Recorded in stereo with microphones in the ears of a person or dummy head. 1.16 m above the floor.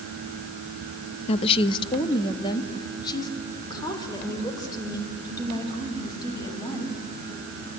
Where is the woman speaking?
40° left (ahead or behind), 0.6 m; by 7.0 s 25° left (ahead or behind), 6.5 m.